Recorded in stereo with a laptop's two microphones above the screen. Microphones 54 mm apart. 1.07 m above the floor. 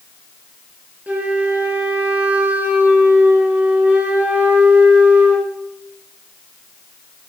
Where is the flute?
30° right (ahead or behind), 1.5 m.